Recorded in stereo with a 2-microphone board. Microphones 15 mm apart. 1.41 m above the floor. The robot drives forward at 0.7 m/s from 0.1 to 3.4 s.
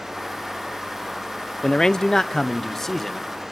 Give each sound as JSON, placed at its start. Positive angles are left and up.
{"t": 1.6, "sound": "a man speaking", "side_deg": 50, "distance_m": 0.5}